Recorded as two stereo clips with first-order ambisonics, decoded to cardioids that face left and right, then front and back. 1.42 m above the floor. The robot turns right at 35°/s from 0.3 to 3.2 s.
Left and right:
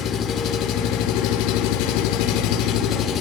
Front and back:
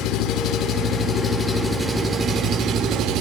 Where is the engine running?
45° left, 3.5 m; by 3.2 s 145° left, 3.5 m.